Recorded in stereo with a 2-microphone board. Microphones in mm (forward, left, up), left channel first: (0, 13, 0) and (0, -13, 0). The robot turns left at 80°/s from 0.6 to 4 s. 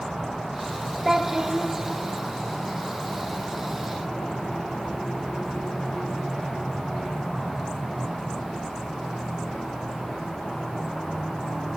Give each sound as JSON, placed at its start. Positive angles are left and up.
{"t": 1.1, "sound": "a child speaking", "azimuth_deg": -15, "distance_m": 0.6}